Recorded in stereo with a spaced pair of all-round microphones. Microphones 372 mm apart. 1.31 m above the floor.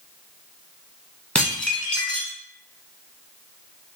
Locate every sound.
1.4 s dishes clattering: 5° left (ahead or behind), 0.9 m